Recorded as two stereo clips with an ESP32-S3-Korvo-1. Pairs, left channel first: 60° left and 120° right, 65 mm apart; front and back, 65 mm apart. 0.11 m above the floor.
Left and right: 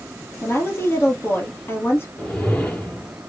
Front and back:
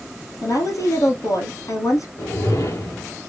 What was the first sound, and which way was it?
A woman speaking, 15° left.